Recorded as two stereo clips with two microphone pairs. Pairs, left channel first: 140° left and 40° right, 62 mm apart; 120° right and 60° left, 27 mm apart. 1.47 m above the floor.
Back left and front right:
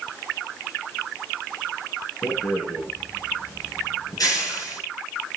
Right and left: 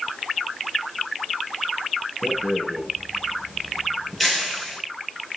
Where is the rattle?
160° left, 8 m.